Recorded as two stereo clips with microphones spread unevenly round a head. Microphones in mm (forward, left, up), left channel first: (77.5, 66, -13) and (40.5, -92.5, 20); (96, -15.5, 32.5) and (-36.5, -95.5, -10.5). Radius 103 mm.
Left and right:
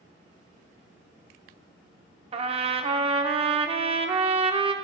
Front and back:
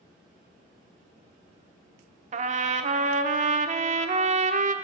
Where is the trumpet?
105° right, 0.6 m.